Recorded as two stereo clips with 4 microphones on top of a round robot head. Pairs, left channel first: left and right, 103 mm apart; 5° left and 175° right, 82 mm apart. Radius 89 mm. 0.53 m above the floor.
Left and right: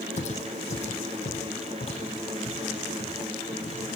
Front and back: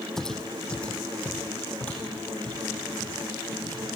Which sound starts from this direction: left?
Footsteps, at 0.2 s.